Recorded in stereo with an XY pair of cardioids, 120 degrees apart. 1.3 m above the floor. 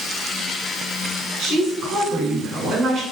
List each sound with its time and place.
1.4 s a woman speaking: 65° right, 6.5 m; by 3.0 s 60° right, 5.5 m